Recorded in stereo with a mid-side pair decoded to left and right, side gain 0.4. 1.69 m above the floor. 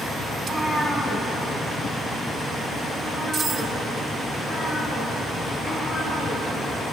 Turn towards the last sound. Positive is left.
turn(degrees=25)